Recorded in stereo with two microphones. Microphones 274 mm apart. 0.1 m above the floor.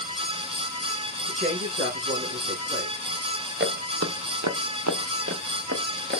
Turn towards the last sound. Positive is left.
turn(degrees=-40)  # may be behind; listen again after turning